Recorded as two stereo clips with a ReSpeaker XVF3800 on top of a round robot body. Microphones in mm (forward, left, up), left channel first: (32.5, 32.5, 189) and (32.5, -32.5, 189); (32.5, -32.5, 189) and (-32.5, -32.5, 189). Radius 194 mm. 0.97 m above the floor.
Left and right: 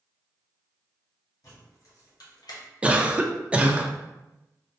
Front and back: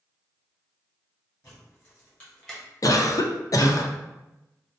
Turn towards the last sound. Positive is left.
turn(degrees=-20)